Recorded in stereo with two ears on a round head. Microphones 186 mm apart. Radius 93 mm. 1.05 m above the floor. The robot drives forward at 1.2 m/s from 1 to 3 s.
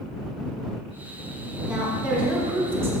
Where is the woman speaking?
5° right (ahead or behind), 2 m; by 2.9 s 15° right (ahead or behind), 0.9 m.